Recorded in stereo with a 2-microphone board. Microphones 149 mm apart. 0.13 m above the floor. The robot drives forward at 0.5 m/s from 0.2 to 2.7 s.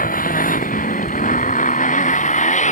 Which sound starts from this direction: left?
A motorcycle, at 0.0 s.